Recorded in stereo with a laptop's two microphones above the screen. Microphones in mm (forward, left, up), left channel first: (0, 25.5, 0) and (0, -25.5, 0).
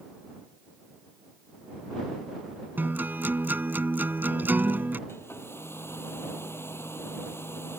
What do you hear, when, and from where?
2.8 s a guitar: 40° right (ahead or behind)
5.1 s a hair dryer: 50° left (ahead or behind)